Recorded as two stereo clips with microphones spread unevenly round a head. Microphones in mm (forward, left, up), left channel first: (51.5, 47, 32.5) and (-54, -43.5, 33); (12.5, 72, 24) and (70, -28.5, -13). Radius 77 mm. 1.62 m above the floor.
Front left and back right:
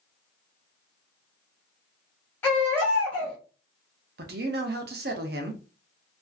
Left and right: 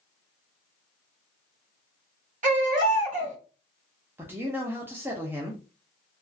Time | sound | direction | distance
2.4 | a baby crying | 35° right | 1.3 m
4.2 | a man speaking | 145° right | 0.6 m